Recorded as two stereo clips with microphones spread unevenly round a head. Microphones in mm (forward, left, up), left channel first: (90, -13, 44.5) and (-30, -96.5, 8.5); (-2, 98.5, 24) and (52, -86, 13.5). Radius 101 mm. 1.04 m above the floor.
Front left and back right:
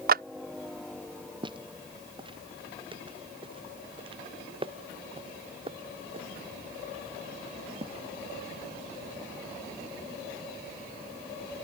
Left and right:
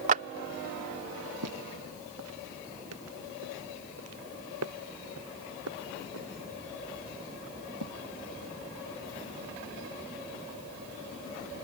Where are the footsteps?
85° right; by 9.2 s 95° right.